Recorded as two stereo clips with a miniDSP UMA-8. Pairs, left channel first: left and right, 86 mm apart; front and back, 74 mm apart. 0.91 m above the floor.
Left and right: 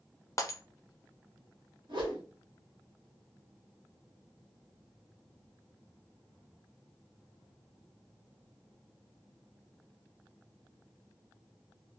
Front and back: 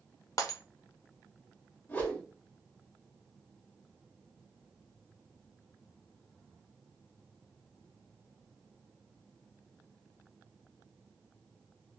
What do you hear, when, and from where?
0.4 s breaking glass: 35° left, 0.6 m
1.9 s a whoosh: 60° right, 1.2 m